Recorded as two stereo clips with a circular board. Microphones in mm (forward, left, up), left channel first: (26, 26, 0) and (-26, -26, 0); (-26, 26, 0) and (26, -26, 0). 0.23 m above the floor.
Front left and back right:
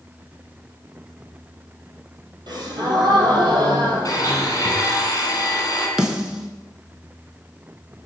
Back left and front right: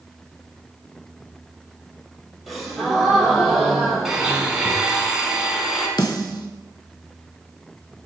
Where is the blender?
40° left, 1.1 m.